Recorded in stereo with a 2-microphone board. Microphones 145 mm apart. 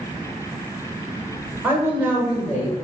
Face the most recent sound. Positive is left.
turn(degrees=-10)  # may be behind; listen again after turning